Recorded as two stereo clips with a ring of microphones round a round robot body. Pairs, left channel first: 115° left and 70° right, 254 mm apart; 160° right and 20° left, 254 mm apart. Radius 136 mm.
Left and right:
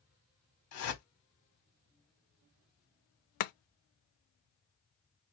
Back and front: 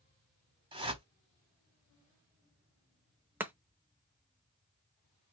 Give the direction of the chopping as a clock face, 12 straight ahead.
9 o'clock.